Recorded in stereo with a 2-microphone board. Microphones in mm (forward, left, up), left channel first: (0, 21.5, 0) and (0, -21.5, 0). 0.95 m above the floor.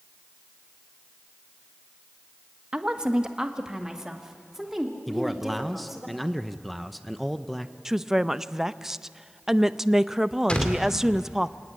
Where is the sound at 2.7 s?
20° right (ahead or behind), 1.3 m; by 6.1 s 5° right (ahead or behind), 4 m.